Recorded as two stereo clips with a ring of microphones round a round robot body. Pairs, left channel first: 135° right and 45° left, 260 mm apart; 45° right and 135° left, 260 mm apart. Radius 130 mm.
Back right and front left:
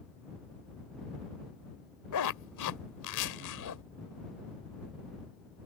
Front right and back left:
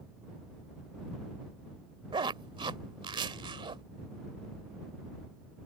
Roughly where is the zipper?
Behind right.